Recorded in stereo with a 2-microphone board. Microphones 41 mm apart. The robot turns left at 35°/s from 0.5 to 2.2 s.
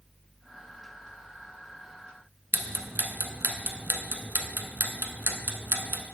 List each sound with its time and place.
2.5 s ticking: 65° right (ahead or behind), 0.8 m